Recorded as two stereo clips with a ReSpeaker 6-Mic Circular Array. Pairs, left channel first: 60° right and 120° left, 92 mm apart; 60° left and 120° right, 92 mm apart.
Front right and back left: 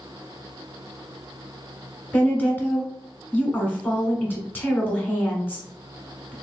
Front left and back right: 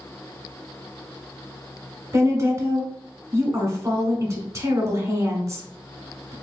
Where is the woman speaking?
115° right, 1.3 m.